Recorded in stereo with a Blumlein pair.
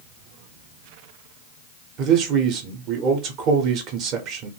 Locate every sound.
2.0 s a man speaking: 35° right, 0.8 m